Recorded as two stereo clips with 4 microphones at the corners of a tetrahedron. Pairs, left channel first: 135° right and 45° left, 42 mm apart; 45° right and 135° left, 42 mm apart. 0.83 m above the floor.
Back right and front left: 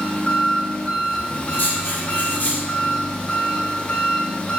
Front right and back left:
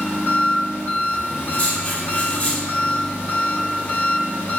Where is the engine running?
70° right, 1.1 m.